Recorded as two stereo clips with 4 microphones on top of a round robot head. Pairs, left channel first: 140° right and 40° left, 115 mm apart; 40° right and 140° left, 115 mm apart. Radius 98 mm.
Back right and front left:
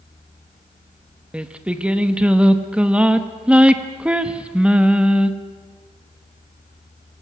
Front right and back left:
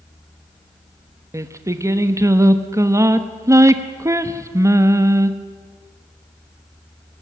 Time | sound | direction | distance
1.3 | singing | 110° left | 1.2 m